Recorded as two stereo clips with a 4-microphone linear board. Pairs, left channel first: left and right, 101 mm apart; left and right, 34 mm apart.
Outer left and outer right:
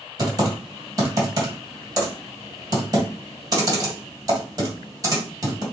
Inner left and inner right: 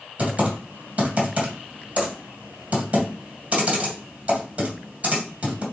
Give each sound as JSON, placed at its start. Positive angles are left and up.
{"t": 0.2, "sound": "typing on a keyboard", "side_deg": -35, "distance_m": 1.9}